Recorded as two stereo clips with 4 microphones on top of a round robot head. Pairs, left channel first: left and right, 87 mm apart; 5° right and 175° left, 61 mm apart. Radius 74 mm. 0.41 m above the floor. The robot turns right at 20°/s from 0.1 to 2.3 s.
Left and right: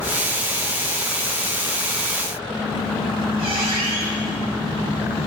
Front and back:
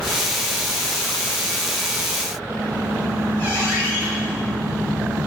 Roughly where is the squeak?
Right.